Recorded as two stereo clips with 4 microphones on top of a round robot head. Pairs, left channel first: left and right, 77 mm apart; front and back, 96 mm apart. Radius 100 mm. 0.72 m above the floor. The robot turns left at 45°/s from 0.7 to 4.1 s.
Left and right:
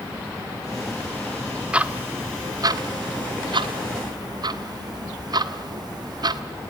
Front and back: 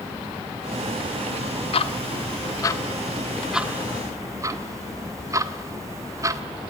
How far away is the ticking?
About 1.5 m.